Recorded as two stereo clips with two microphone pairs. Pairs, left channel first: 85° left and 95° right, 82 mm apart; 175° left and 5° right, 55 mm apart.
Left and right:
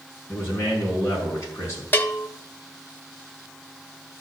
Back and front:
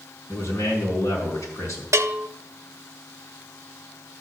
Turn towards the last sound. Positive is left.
turn(degrees=20)